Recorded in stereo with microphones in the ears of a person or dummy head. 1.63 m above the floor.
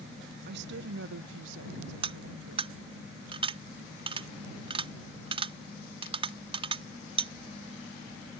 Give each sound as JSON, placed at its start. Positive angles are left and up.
{"t": 0.5, "sound": "a woman speaking", "side_deg": -65}
{"t": 2.0, "sound": "cutlery clinking", "side_deg": -30}